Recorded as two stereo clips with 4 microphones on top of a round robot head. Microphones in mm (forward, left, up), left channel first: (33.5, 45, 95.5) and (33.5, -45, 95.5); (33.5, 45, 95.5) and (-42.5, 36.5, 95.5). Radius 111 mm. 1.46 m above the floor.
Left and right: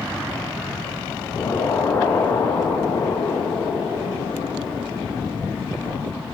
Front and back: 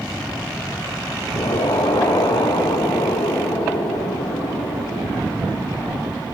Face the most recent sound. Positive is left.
turn(degrees=30)